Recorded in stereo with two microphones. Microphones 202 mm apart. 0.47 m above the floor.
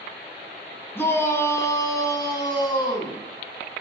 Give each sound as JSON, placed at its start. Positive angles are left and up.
{"t": 0.9, "sound": "a shout", "side_deg": 10, "distance_m": 4.0}